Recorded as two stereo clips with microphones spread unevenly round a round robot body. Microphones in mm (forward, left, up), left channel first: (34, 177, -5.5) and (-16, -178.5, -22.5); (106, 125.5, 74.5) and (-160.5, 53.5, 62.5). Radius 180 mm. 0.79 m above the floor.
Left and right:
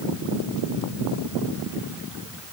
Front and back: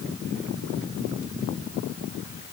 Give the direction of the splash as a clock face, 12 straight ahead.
I don't hear a splash.